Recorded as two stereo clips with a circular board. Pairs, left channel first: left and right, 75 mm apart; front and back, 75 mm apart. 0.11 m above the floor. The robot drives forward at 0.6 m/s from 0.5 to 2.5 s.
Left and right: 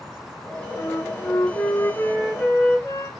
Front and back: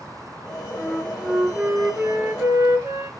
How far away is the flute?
About 0.9 m.